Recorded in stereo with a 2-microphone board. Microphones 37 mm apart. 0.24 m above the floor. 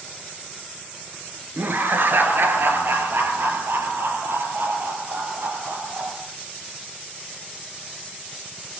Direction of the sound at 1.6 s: 65° right (ahead or behind).